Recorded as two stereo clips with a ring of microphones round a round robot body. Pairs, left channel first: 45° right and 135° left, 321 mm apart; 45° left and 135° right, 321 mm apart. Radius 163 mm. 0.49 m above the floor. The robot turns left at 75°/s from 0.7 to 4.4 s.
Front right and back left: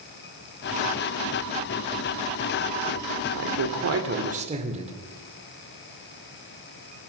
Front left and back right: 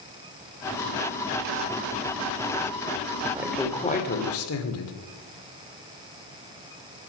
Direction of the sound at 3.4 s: 150° left.